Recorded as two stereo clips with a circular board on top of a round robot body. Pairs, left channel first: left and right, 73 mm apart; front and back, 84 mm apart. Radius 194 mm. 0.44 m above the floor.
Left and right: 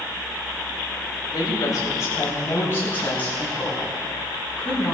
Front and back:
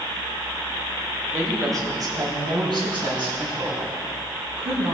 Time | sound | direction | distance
1.3 | a woman speaking | 125° left | 3 m